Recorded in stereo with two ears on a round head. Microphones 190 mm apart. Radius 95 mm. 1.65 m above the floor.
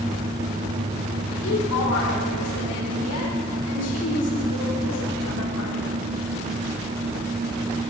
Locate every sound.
1.4 s a woman speaking: 85° left, 7.5 m